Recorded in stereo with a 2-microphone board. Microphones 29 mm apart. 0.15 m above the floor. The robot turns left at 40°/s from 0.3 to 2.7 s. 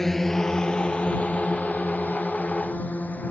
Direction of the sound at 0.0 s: 10° left (ahead or behind).